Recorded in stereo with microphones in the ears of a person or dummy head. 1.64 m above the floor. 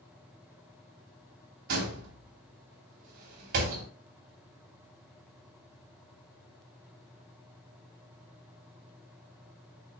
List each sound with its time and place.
1.7 s a door slam: 55° right (ahead or behind), 2.5 m